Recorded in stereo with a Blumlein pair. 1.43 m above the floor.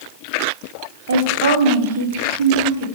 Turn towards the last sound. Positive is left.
turn(degrees=-60)